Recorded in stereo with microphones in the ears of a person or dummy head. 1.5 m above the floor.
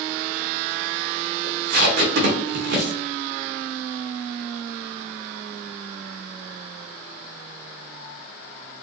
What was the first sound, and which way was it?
Tape being pulled, 65° right (ahead or behind).